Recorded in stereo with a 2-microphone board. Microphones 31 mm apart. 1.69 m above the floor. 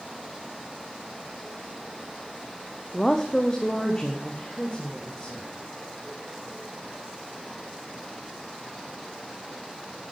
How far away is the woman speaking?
About 0.6 m.